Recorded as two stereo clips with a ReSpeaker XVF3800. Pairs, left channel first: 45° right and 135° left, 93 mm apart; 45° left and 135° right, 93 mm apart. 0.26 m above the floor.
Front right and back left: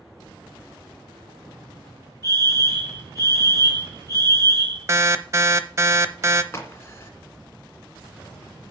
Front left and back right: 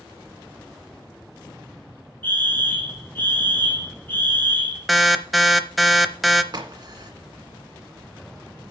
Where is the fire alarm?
105° left, 3 m.